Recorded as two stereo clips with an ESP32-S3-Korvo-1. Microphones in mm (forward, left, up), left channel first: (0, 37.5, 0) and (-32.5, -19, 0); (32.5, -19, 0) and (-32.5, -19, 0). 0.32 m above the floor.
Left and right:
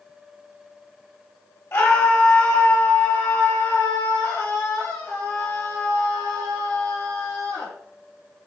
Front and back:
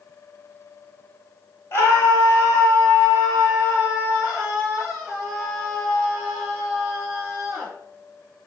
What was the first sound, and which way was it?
A scream, 35° left.